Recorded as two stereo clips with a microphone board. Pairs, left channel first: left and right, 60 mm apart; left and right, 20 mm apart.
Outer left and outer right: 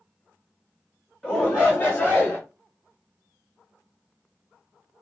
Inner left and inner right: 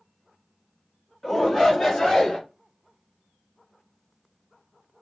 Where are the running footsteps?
No running footsteps in this recording.